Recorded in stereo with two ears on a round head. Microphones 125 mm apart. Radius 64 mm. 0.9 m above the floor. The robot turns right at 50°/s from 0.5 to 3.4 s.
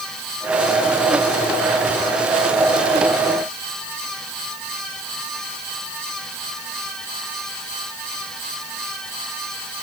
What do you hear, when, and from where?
Only background noise.